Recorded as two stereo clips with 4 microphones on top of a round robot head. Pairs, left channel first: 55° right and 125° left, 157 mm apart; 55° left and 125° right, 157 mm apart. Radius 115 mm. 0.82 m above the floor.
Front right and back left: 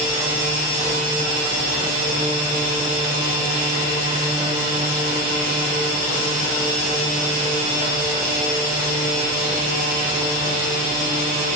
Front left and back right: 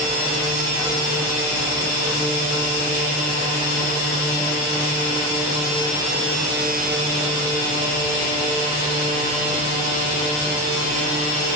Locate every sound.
Only background noise.